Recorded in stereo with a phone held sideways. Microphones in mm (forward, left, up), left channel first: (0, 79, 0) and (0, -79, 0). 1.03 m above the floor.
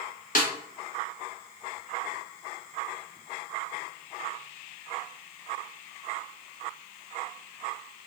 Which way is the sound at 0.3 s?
60° left (ahead or behind).